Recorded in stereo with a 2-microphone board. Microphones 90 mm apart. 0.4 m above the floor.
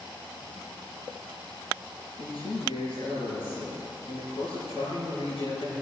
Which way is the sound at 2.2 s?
80° left.